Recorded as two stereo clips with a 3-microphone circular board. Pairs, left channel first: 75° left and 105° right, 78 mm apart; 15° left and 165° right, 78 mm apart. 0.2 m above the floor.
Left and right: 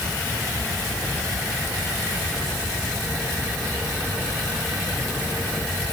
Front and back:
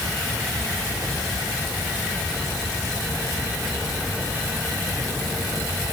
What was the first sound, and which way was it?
Only background noise.